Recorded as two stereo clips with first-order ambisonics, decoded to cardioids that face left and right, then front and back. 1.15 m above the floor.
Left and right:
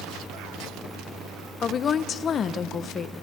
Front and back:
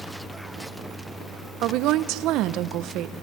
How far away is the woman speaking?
About 0.6 m.